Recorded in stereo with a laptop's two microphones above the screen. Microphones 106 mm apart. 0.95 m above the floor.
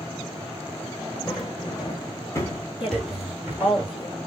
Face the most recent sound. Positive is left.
turn(degrees=60)  # may be behind; listen again after turning